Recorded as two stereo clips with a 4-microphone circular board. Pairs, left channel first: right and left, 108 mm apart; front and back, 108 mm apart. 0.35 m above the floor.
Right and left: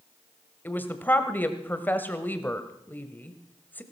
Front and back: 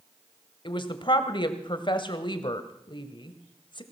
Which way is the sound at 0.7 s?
20° right.